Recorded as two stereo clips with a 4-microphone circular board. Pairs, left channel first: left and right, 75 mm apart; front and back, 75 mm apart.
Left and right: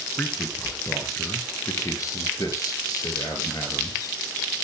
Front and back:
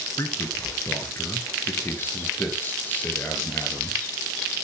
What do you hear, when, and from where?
0.2 s a man speaking: 30° left, 3 m; by 4.2 s 70° left, 4.5 m